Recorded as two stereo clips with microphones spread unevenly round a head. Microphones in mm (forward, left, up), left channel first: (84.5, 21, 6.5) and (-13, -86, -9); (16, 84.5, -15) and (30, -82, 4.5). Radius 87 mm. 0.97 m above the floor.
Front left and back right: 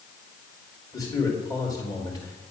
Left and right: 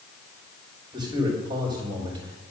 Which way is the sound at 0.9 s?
20° right.